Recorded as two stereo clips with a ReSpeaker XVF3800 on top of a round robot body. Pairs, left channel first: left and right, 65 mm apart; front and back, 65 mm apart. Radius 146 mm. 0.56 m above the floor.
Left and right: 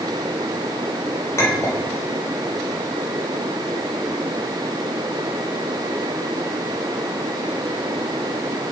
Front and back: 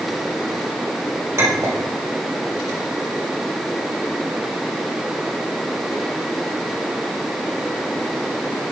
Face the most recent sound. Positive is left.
turn(degrees=135)